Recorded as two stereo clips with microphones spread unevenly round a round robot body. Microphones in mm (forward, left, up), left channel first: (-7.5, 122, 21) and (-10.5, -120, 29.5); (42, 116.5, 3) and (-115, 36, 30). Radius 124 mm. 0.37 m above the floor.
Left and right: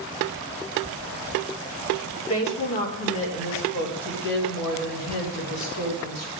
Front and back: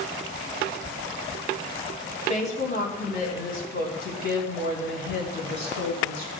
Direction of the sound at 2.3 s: 70° left.